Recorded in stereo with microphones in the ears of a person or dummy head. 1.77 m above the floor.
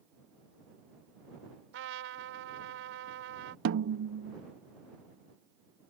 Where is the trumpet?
75° right (ahead or behind).